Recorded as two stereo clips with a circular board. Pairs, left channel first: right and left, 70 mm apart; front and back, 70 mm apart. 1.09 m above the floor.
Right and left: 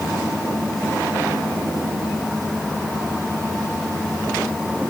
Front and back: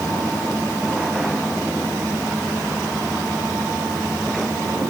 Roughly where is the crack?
No crack in this recording.